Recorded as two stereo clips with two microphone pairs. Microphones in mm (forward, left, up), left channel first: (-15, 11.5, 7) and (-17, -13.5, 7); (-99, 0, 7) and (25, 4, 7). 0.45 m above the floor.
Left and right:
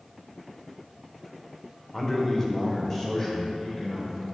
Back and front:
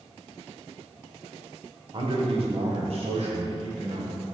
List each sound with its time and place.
1.9 s a man speaking: 25° left, 1.1 m; by 4.2 s 15° left, 3 m